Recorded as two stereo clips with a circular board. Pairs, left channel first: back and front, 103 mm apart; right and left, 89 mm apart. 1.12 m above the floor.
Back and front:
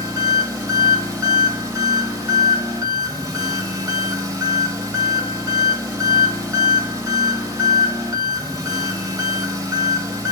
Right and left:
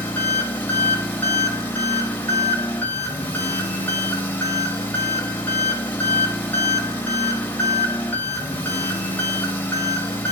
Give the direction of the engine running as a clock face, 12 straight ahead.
1 o'clock.